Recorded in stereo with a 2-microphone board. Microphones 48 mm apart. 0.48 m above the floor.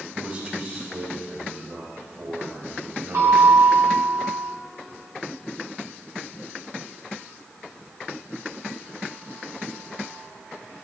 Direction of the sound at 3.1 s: 70° right (ahead or behind).